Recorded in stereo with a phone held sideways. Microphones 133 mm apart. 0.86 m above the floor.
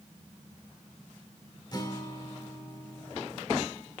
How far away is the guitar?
About 1.3 m.